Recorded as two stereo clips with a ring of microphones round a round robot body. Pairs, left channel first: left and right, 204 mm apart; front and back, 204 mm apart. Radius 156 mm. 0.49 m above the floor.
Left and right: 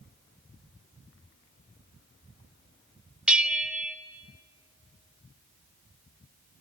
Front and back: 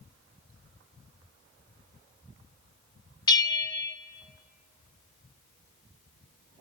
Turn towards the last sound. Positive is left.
turn(degrees=-15)